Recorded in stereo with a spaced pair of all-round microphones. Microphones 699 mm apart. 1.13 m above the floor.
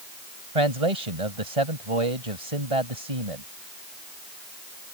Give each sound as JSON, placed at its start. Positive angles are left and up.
{"t": 0.6, "sound": "a man speaking", "side_deg": -55}